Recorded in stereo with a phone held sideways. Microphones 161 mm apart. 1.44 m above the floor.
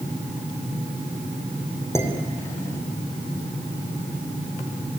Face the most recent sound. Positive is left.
turn(degrees=15)  # may be behind; listen again after turning